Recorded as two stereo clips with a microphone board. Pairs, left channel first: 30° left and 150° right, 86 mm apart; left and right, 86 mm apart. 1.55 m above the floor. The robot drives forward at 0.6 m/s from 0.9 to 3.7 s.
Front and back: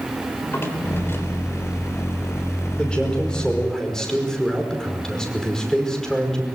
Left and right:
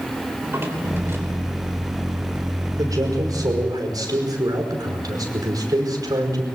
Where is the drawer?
30° right, 3.5 m.